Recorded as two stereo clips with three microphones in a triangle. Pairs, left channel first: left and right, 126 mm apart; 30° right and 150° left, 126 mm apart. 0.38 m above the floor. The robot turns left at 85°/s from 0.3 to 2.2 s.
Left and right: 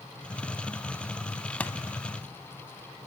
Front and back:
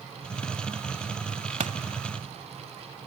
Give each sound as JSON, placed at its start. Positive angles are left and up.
{"t": 1.6, "sound": "a pop", "azimuth_deg": 170, "distance_m": 1.0}